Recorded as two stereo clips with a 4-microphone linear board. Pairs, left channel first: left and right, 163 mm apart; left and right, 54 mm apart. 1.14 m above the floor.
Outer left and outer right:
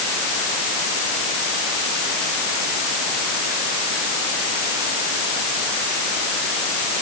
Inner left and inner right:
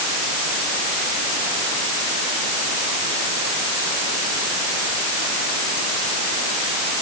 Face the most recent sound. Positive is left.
No sound to turn to.